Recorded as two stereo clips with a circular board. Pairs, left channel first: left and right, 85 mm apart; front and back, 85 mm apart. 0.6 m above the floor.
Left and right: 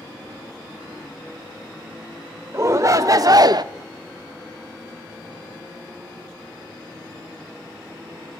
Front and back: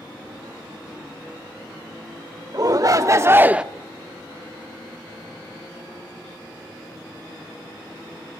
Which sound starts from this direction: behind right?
A shout, at 2.5 s.